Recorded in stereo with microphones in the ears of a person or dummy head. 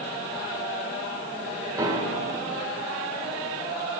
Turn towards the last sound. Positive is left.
turn(degrees=-30)  # may be behind; listen again after turning